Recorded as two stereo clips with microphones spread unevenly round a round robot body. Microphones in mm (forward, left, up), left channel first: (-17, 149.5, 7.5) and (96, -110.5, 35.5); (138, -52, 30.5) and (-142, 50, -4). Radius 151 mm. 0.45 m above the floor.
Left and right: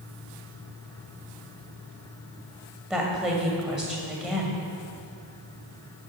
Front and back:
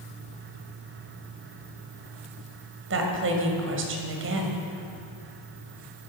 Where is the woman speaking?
155° right, 2 m.